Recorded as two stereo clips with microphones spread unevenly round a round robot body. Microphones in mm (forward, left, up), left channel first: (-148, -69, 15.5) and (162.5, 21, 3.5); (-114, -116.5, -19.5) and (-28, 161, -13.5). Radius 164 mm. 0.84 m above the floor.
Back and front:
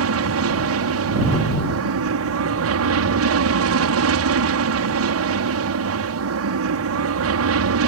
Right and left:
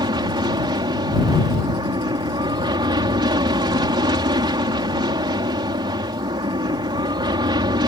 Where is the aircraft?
Straight ahead.